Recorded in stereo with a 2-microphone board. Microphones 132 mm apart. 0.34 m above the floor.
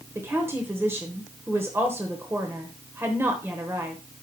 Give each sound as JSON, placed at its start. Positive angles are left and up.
{"t": 0.1, "sound": "a woman speaking", "side_deg": -20, "distance_m": 1.0}